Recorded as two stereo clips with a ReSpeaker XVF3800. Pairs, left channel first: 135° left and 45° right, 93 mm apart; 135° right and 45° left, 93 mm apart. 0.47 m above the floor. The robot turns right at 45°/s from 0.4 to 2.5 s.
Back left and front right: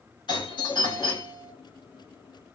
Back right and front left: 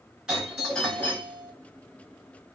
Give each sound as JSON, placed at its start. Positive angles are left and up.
{"t": 0.3, "sound": "a doorbell", "azimuth_deg": 125, "distance_m": 2.5}